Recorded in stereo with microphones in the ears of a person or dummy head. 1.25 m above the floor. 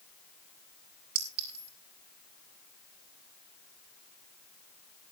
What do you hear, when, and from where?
1.1 s a clink: 55° right (ahead or behind), 4 m